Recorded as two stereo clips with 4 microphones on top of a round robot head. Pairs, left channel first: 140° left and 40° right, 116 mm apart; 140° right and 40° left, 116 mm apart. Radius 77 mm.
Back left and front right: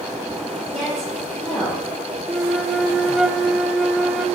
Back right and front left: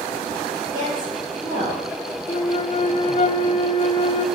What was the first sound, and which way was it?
A woman speaking, 50° left.